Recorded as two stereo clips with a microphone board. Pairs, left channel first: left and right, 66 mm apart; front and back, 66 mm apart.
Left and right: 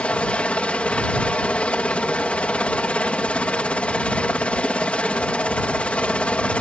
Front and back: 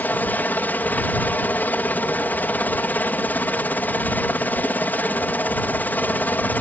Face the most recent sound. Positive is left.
turn(degrees=30)